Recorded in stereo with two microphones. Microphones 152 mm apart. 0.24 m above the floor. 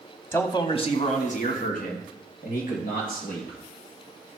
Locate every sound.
0.3 s a man speaking: 15° left (ahead or behind), 1.1 m; by 3.6 s 70° left (ahead or behind), 4.5 m